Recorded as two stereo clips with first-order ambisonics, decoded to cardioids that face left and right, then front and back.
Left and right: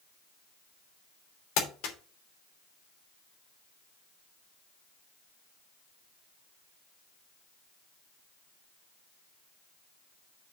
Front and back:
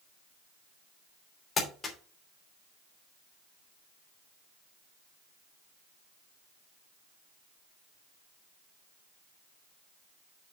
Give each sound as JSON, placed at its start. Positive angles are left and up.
{"t": 1.6, "sound": "crumpling", "azimuth_deg": 70, "distance_m": 3.0}